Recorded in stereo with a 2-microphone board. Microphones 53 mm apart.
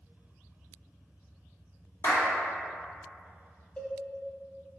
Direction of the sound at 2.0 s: 65° left (ahead or behind).